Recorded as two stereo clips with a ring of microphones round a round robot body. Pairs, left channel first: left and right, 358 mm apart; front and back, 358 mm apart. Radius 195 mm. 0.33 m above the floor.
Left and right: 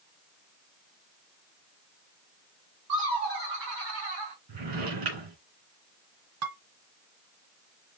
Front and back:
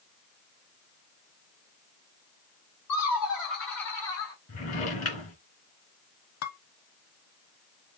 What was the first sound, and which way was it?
Laughter, 20° right.